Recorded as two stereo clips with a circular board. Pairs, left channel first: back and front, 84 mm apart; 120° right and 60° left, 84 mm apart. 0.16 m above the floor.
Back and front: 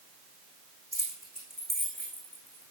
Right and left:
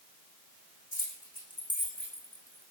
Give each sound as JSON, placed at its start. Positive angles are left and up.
{"t": 0.9, "sound": "keys jangling", "azimuth_deg": 90, "distance_m": 6.0}